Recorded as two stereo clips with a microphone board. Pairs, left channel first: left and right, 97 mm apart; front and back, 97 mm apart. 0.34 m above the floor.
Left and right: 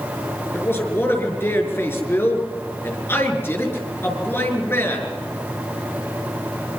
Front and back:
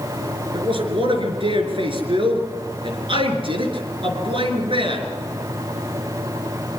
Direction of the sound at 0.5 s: 155° left.